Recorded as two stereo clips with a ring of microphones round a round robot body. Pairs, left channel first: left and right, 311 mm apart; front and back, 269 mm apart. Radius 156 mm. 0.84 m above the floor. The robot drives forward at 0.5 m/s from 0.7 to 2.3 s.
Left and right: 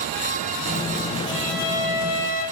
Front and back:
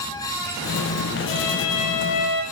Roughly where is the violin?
Ahead.